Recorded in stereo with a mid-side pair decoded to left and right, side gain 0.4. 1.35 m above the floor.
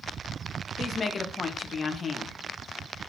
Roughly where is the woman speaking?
Ahead left.